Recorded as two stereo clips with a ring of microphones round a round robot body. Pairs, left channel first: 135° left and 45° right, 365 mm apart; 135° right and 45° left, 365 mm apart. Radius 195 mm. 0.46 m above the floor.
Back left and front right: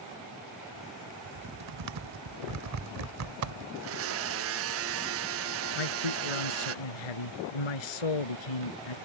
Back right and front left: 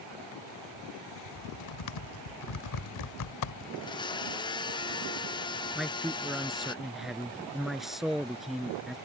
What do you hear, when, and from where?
1.2 s typing on a keyboard: 95° right
3.8 s a blender: 65° right
5.8 s a man speaking: 135° left